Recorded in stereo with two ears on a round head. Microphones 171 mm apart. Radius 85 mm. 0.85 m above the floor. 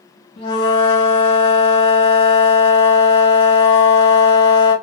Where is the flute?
25° left (ahead or behind), 1.1 m.